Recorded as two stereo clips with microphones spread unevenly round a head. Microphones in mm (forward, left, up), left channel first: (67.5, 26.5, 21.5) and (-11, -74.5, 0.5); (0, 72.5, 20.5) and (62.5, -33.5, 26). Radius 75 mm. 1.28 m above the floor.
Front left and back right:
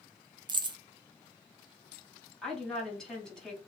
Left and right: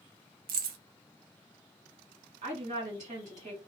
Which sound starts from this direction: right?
Keys jangling, at 0.5 s.